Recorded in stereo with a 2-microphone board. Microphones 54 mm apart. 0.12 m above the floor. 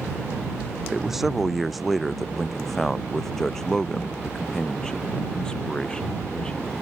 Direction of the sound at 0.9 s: 5° right (ahead or behind).